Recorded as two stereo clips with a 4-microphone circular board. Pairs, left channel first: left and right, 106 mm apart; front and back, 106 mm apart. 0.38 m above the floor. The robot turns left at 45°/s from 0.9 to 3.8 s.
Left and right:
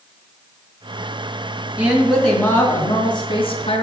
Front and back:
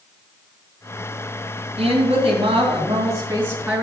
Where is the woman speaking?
175° right, 2.5 m; by 3.8 s 90° left, 2.5 m.